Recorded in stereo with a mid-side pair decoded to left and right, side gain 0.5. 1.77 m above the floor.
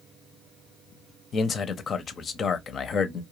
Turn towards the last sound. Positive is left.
turn(degrees=45)